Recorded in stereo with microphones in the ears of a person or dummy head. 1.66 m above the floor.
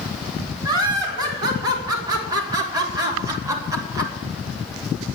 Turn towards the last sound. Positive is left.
turn(degrees=-20)  # may be behind; listen again after turning